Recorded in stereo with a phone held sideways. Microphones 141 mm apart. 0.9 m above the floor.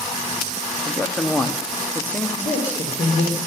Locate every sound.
0.8 s a man speaking: 10° left (ahead or behind), 1.4 m
2.4 s a man speaking: 60° left (ahead or behind), 4 m